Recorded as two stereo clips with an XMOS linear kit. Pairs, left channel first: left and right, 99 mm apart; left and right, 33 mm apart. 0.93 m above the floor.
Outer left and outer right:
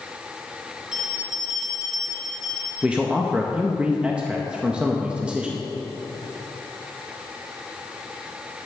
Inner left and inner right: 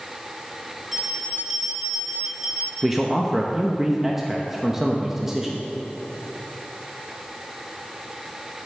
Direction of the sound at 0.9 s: 10° right (ahead or behind).